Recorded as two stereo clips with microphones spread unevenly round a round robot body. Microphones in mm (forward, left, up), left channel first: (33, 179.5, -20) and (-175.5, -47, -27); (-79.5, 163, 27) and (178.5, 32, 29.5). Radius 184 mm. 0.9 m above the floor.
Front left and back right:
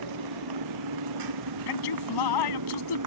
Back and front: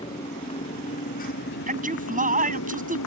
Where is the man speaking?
35° left.